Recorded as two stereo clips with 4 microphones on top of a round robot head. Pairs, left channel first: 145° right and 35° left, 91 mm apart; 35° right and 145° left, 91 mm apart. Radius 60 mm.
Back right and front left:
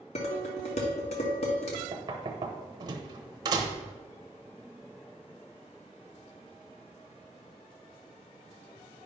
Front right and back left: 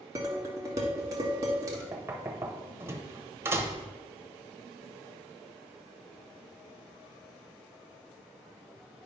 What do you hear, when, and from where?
0.1 s dishes clattering: 155° right, 1.4 m
1.9 s knocking: 80° left, 0.9 m